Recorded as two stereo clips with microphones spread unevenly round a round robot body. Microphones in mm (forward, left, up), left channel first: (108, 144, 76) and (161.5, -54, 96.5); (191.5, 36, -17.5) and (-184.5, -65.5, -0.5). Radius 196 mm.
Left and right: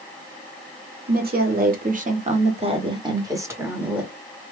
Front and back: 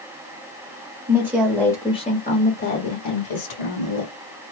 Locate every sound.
1.1 s a woman speaking: 85° right, 1.3 m; by 4.1 s 15° left, 1.7 m